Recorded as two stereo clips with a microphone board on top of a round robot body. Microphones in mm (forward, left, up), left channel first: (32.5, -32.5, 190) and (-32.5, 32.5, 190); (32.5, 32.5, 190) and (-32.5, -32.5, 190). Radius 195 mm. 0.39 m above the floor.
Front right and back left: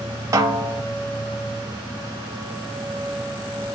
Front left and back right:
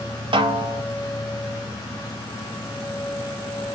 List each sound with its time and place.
0.3 s a snare drum: 165° right, 1.0 m